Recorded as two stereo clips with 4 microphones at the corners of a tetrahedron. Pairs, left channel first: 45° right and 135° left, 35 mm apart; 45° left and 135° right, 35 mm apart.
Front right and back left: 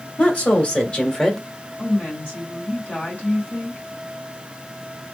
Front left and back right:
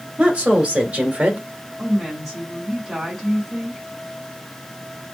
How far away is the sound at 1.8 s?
About 2 m.